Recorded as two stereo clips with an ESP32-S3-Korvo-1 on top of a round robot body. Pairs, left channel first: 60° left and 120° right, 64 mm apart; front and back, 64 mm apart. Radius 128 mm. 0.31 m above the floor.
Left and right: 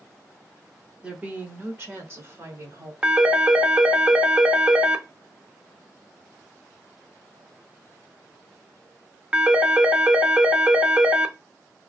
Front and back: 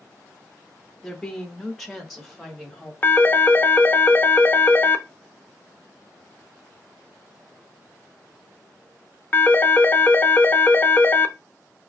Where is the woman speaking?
75° right, 0.9 m; by 2.9 s 95° right, 1.6 m.